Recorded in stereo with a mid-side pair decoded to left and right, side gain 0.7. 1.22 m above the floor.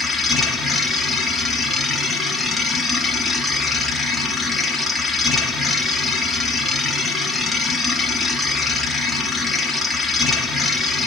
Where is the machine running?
10° left, 3.5 m.